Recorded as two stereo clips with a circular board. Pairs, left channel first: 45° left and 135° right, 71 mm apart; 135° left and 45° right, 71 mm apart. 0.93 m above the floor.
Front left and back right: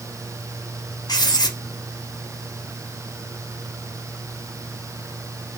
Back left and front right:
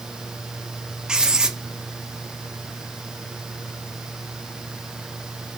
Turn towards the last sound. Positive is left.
turn(degrees=35)